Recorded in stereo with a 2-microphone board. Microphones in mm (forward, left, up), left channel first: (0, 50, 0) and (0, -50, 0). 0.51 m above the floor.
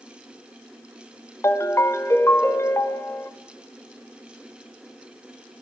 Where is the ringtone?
25° left (ahead or behind), 0.7 m.